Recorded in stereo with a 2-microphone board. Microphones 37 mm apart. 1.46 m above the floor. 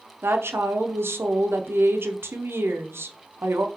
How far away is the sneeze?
No sneeze in this recording.